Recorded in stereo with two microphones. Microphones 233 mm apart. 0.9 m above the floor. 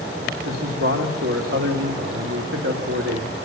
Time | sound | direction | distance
0.5 | a man speaking | 70° right (ahead or behind) | 2.5 m